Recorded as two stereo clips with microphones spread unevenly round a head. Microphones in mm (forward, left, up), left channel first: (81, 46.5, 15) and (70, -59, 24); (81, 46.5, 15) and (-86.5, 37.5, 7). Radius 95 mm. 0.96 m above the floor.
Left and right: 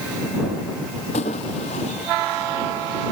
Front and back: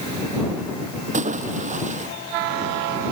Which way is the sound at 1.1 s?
140° left.